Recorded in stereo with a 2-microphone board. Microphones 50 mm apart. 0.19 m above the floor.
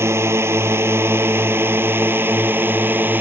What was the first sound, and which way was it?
A drone, 60° right (ahead or behind).